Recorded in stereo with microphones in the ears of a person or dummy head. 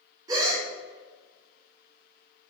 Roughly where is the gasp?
Right.